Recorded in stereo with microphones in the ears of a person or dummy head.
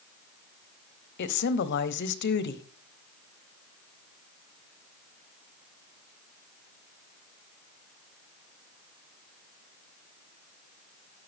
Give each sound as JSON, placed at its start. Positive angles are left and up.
{"t": 1.2, "sound": "a woman speaking", "side_deg": 60, "distance_m": 0.9}